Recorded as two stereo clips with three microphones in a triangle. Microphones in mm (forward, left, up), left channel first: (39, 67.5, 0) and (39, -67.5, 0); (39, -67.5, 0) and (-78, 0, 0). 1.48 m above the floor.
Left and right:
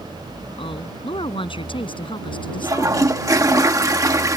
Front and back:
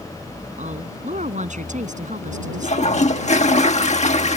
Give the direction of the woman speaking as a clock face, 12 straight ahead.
7 o'clock.